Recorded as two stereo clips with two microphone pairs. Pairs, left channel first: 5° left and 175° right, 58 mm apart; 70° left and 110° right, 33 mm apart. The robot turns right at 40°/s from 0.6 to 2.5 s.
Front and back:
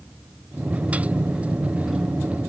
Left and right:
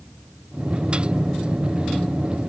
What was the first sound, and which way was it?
Only background noise.